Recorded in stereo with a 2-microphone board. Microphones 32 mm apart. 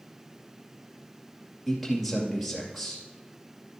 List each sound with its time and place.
1.7 s a man speaking: centre (ahead or behind), 2.5 m